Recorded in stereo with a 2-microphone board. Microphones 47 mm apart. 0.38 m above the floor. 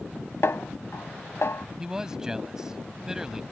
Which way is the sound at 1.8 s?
15° right (ahead or behind).